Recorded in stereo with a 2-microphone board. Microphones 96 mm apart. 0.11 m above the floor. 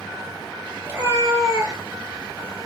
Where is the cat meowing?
20° right (ahead or behind), 0.9 m; by 2.7 s 35° right (ahead or behind), 1.2 m.